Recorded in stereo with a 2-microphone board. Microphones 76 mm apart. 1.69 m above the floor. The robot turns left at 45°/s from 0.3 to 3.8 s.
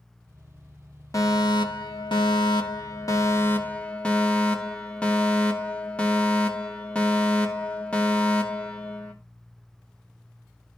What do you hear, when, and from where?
1.1 s a fire alarm: 135° left, 2.5 m; by 9.1 s 15° left, 2.5 m